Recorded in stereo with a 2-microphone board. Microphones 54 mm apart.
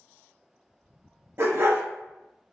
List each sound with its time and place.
1.4 s a dog barking: 50° right (ahead or behind), 0.9 m